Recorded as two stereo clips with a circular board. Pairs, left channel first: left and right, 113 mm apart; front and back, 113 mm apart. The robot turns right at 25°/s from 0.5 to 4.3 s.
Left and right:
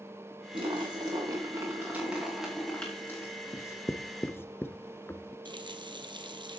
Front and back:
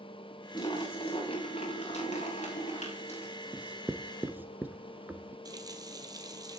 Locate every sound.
0.5 s a splash: 45° right, 8.5 m; by 3.3 s 25° left, 8.5 m
3.5 s writing: 110° left, 1.1 m; by 5.3 s 130° left, 1.1 m
5.5 s a running tap: 130° right, 1.9 m